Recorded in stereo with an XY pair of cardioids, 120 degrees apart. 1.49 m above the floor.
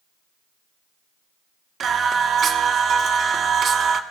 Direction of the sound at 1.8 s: 50° right.